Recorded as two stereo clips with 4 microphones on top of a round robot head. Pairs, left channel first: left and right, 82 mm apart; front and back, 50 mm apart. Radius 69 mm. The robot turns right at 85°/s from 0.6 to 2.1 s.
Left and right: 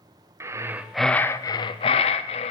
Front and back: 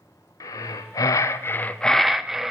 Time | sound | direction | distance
0.4 | breathing | 30° right | 0.7 m